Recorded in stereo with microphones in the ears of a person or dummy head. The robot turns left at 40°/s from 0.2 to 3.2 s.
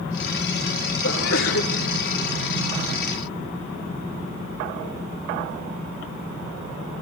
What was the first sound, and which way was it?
A sneeze, 75° left (ahead or behind).